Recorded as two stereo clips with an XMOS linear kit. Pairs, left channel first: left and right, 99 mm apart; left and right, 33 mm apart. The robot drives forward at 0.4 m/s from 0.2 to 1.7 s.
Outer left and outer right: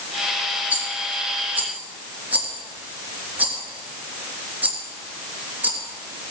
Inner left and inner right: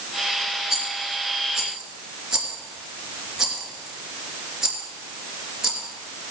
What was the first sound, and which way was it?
A rattle, 15° right (ahead or behind).